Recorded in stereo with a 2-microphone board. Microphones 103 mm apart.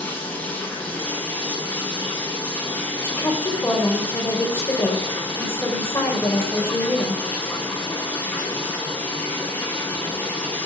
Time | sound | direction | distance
0.0 | running water | 15° left (ahead or behind) | 5.5 m
3.0 | a woman speaking | 30° left (ahead or behind) | 4.5 m